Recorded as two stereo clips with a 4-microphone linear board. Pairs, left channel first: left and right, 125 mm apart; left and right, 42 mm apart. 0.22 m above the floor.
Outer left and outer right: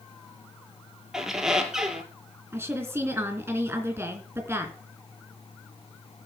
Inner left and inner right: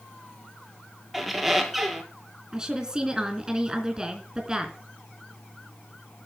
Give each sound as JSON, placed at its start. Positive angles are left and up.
{"t": 1.1, "sound": "a squeak", "side_deg": -5, "distance_m": 1.5}
{"t": 2.5, "sound": "a woman speaking", "side_deg": -20, "distance_m": 3.0}